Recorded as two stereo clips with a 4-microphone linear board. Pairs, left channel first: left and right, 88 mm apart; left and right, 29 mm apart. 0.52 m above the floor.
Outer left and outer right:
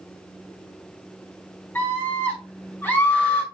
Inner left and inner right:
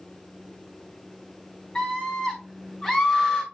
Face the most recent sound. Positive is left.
turn(degrees=25)  # may be behind; listen again after turning